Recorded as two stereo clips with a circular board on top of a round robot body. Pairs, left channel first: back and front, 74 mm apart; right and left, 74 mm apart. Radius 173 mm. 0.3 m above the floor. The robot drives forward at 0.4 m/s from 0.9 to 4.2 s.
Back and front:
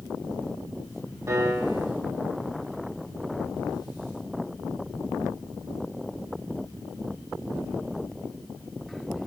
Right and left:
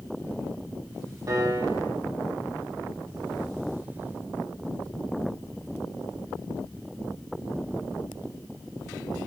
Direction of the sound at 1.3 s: 50° left.